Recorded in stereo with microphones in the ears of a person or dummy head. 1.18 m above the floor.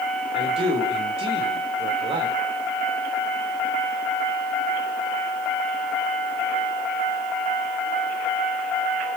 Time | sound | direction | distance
0.3 | a man speaking | 25° right (ahead or behind) | 3.5 m